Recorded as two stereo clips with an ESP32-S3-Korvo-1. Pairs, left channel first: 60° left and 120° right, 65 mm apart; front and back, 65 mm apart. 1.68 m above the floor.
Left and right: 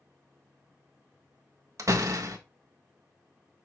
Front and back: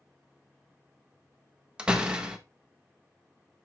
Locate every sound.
1.8 s a door slam: 110° right, 1.3 m